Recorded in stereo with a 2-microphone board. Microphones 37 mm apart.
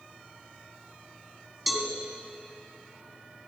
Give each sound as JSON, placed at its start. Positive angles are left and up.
{"t": 1.7, "sound": "a cowbell", "side_deg": 0, "distance_m": 1.9}